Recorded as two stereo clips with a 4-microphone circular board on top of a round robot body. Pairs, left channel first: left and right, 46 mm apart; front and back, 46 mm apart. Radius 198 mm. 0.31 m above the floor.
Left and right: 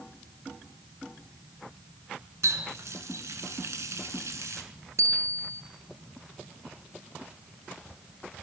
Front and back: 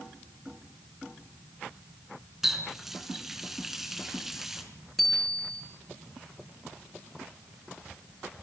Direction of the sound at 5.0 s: 85° right.